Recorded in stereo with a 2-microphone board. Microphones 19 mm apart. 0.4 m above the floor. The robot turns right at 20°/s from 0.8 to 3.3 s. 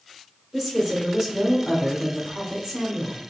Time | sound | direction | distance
0.5 | a woman speaking | 20° right (ahead or behind) | 1.4 m